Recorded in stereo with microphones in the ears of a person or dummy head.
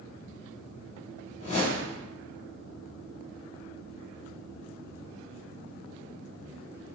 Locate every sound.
1.4 s a whoosh: 35° left (ahead or behind), 0.7 m